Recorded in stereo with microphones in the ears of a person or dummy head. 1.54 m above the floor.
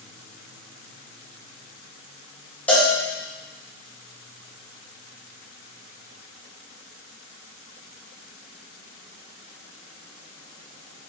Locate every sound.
2.7 s a cowbell: 5° left (ahead or behind), 1.8 m